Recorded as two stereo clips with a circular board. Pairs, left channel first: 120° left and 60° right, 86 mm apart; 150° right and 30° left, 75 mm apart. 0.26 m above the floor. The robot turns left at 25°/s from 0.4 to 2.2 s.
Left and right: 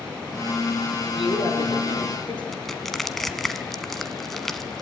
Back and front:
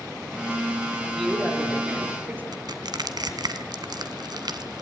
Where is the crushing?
35° left, 1.4 m.